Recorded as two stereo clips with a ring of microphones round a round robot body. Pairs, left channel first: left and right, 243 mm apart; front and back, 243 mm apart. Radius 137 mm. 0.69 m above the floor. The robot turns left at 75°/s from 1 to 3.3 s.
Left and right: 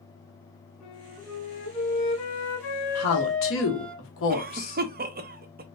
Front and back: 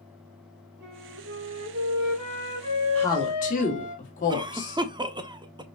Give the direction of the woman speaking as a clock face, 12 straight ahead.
9 o'clock.